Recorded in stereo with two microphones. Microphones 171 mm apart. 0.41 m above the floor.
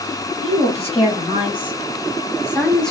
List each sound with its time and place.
0.4 s a woman speaking: 35° left (ahead or behind), 1.9 m; by 2.9 s centre (ahead or behind), 0.9 m